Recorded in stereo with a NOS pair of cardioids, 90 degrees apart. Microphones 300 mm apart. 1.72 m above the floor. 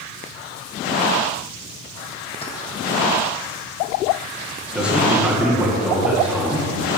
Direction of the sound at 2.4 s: 20° left.